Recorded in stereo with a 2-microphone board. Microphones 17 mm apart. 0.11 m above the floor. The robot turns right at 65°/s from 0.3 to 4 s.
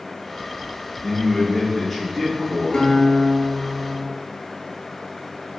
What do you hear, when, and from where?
1.0 s a man speaking: 120° left, 1.2 m; by 2.9 s 120° right, 1.2 m
2.7 s a guitar: 60° left, 0.7 m; by 4.1 s 140° left, 0.7 m